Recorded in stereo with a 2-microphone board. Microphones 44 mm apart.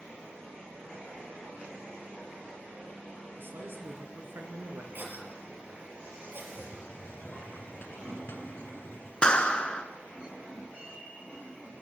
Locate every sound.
3.4 s a man speaking: 60° right (ahead or behind), 3 m
4.9 s a cough: 45° right (ahead or behind), 4 m
6.5 s a hiss: 50° left (ahead or behind), 1.3 m
9.2 s a clap: 20° left (ahead or behind), 1.4 m